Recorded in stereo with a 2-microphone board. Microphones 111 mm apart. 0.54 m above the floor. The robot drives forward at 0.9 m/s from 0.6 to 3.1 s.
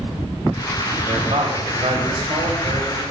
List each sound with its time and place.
1.1 s a man speaking: 65° right (ahead or behind), 3.5 m